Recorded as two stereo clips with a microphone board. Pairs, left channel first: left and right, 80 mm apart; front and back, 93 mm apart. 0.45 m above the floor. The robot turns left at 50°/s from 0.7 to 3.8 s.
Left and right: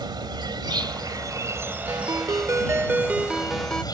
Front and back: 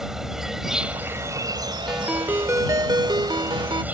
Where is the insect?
95° right; by 3.9 s 110° left.